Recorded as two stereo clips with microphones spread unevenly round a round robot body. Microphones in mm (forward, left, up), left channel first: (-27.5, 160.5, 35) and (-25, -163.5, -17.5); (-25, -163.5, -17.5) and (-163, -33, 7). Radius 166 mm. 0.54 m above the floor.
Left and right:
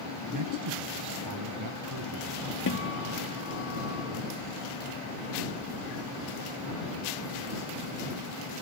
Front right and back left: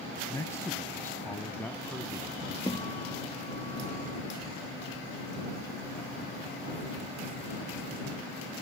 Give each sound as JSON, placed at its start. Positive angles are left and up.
{"t": 0.3, "sound": "a man speaking", "azimuth_deg": -120}
{"t": 2.7, "sound": "a guitar", "azimuth_deg": 35}